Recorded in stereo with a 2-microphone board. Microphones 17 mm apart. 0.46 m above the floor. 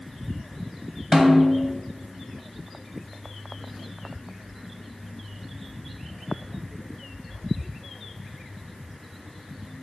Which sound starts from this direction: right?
A snare drum, at 1.1 s.